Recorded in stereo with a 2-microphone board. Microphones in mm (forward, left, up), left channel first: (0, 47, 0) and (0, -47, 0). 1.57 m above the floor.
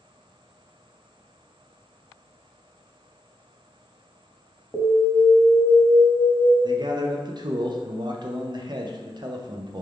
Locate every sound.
4.7 s an alarm: 25° left (ahead or behind), 1.0 m
6.6 s a man speaking: 50° right (ahead or behind), 0.6 m